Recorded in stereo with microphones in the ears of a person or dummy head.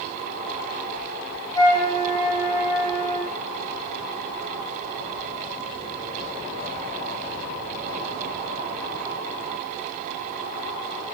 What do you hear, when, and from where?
1.6 s a flute: 20° left (ahead or behind), 0.7 m